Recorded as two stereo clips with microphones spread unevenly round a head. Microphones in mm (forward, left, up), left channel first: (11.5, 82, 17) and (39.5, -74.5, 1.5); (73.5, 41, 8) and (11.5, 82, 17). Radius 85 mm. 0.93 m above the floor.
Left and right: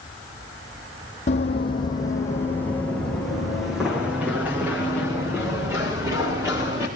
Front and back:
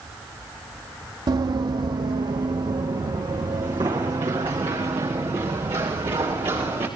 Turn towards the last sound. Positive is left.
turn(degrees=-150)